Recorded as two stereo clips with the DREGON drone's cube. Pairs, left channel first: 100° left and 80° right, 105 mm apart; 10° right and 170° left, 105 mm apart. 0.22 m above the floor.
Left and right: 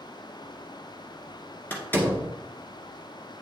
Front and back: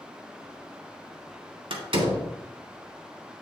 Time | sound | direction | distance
1.7 | a door slam | 165° left | 1.7 m